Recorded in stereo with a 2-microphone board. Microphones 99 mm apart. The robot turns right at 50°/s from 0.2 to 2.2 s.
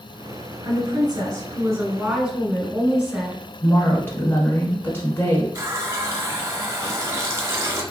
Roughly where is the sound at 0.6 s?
Right.